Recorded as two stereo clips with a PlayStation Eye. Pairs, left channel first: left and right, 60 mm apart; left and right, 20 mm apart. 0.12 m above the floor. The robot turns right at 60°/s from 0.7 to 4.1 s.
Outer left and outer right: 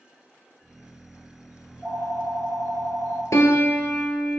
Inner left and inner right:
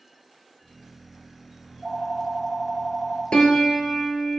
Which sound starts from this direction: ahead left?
A phone ringing, at 1.6 s.